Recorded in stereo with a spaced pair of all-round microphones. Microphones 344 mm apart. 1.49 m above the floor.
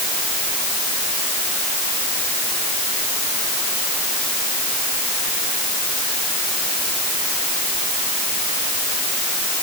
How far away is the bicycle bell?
No bicycle bell in this recording.